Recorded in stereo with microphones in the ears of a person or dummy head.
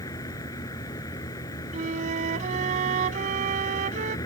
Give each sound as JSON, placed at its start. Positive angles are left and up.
{"t": 0.0, "sound": "a vehicle", "side_deg": 20}
{"t": 1.7, "sound": "a flute", "side_deg": -40}